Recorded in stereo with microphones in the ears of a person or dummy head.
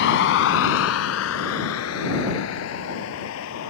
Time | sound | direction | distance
0.0 | a vehicle | 65° left (ahead or behind) | ?